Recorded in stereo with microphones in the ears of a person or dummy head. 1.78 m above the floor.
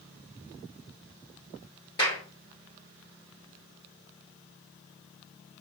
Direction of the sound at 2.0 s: 20° left (ahead or behind).